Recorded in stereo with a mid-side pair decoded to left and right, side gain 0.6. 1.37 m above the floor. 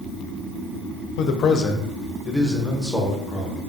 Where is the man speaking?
65° left, 0.5 m; by 3.6 s 10° right, 1.4 m.